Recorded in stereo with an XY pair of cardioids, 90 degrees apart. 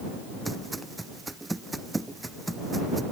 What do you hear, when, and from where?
0.5 s footsteps: 15° right